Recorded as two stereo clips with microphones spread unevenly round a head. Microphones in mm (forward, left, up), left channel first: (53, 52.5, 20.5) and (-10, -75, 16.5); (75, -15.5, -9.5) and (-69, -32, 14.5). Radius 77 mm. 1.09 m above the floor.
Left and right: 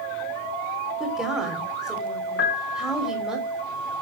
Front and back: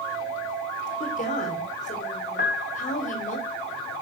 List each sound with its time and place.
1.0 s a woman speaking: 30° right, 3 m
2.4 s a piano: 50° left, 1.6 m